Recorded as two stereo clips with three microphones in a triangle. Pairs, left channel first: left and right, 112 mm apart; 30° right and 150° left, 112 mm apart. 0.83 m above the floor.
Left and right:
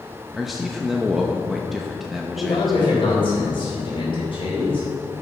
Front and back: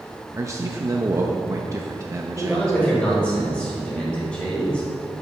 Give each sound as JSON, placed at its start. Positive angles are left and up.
{"t": 0.3, "sound": "a man speaking", "azimuth_deg": 180, "distance_m": 0.8}
{"t": 2.4, "sound": "a man speaking", "azimuth_deg": 50, "distance_m": 4.0}